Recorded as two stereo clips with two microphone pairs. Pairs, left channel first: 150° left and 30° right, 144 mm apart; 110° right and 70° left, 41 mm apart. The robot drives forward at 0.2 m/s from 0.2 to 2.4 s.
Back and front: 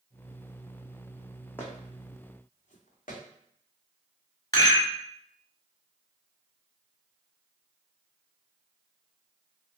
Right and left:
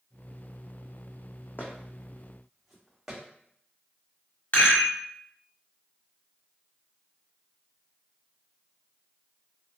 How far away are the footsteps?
About 0.9 m.